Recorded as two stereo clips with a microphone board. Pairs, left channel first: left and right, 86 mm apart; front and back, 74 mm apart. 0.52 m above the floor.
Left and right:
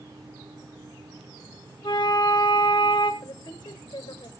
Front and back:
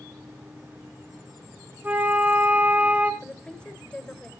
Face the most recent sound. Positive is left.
turn(degrees=75)